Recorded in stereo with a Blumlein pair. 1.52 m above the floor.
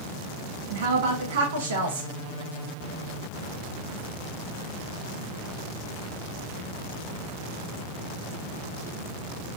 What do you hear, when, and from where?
0.7 s a woman speaking: 60° right, 1.1 m